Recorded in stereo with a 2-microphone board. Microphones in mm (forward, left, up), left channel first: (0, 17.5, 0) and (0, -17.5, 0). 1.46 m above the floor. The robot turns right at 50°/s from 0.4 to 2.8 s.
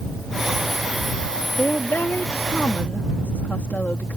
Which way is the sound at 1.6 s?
60° left.